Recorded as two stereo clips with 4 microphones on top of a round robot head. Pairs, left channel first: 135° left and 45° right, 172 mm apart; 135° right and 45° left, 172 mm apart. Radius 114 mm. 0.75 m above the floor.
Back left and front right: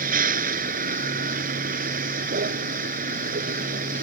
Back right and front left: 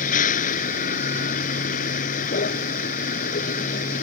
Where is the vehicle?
85° right.